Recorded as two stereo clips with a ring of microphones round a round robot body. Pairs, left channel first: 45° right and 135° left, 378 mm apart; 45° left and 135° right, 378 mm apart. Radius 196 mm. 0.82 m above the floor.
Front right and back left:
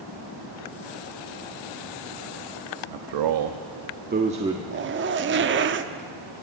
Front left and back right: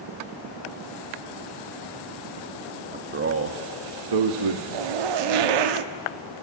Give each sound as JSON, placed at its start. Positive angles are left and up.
{"t": 2.9, "sound": "a man speaking", "azimuth_deg": 150, "distance_m": 1.1}
{"t": 4.7, "sound": "a zipper", "azimuth_deg": -160, "distance_m": 0.9}